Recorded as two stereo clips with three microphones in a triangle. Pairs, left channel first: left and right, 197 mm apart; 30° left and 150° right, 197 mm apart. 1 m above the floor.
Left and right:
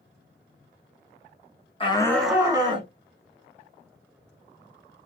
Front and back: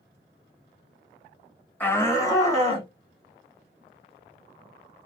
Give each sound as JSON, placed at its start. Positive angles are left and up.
{"t": 1.8, "sound": "a shout", "azimuth_deg": 95, "distance_m": 0.9}